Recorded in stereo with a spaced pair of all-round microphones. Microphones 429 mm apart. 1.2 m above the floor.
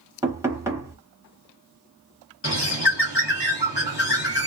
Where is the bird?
75° left (ahead or behind), 1.4 m.